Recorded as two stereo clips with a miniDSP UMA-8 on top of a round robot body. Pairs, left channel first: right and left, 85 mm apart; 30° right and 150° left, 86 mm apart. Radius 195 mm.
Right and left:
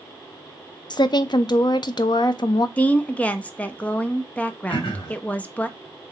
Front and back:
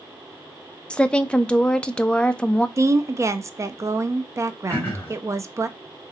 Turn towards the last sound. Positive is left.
turn(degrees=-100)